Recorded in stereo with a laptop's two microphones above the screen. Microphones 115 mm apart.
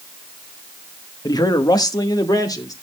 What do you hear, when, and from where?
1.2 s a man speaking: 30° left (ahead or behind), 1.0 m